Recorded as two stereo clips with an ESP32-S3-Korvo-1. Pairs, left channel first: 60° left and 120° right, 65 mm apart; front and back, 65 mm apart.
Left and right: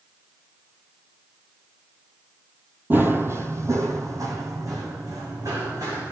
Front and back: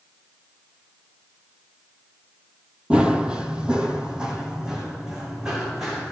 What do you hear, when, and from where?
2.9 s running footsteps: 120° right, 1.2 m; by 6.1 s 100° right, 3.5 m